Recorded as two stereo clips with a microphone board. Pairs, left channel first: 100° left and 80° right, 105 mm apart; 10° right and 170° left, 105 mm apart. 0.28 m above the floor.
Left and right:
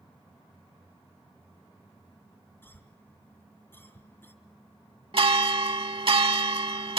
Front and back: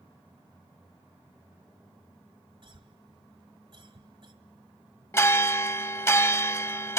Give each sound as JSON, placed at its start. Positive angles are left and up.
{"t": 2.6, "sound": "a cough", "azimuth_deg": 165, "distance_m": 2.0}
{"t": 5.1, "sound": "a bell", "azimuth_deg": -75, "distance_m": 0.7}